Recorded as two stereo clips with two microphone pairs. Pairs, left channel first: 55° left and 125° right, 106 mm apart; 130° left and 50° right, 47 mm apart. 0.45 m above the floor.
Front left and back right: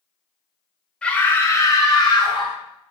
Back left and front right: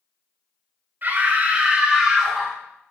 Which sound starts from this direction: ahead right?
A scream, at 1.0 s.